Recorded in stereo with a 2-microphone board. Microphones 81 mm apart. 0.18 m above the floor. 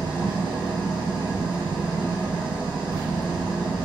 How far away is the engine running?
About 2.5 m.